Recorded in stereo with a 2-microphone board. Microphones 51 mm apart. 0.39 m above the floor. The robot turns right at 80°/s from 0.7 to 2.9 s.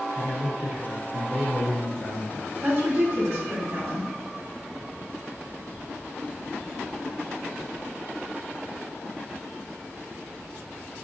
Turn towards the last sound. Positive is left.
turn(degrees=-45)  # may be behind; listen again after turning